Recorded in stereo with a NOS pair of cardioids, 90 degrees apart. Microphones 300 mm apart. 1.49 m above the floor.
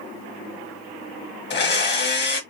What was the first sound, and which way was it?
A blender, 35° left.